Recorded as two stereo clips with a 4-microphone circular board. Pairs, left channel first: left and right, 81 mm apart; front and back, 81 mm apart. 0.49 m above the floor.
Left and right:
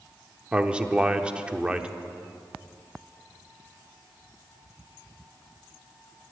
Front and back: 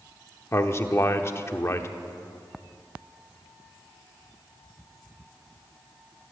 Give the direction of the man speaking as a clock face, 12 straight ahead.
1 o'clock.